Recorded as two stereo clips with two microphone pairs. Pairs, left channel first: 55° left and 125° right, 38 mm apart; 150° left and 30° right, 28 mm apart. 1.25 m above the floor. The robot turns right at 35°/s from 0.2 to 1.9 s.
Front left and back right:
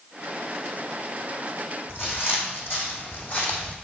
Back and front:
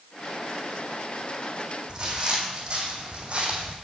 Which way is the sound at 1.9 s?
35° left.